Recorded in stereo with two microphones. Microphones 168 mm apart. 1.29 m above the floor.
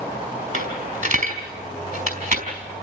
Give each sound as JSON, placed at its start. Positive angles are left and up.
{"t": 0.5, "sound": "a dropped coin", "side_deg": -55, "distance_m": 5.0}